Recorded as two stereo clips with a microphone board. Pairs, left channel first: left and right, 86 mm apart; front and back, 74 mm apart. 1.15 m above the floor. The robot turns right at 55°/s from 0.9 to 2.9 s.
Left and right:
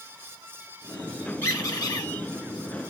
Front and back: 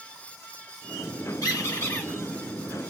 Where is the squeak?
25° left, 1.8 m; by 2.1 s 65° left, 1.8 m.